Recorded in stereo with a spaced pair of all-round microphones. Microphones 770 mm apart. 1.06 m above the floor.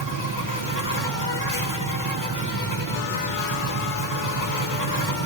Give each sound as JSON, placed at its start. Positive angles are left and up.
{"t": 0.0, "sound": "an insect", "side_deg": 25, "distance_m": 1.9}